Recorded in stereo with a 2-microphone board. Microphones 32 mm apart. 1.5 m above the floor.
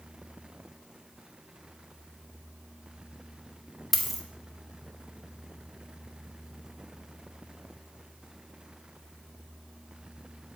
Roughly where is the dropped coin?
Centre.